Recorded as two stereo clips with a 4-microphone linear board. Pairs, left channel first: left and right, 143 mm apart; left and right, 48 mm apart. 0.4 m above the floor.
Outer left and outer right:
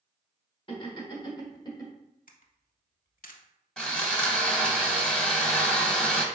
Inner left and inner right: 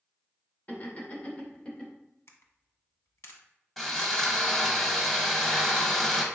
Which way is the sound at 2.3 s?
70° left (ahead or behind).